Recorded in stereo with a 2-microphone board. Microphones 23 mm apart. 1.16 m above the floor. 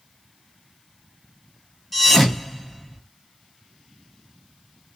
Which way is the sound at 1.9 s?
5° left (ahead or behind).